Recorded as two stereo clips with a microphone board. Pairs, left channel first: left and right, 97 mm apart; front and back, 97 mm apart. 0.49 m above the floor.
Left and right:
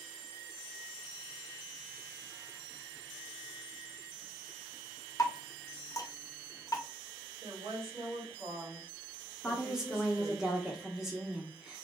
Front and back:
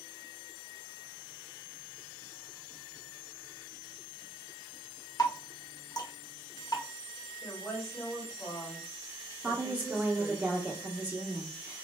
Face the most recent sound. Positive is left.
turn(degrees=-165)